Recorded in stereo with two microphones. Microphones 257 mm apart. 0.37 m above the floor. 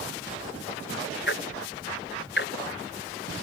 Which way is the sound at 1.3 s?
45° left (ahead or behind).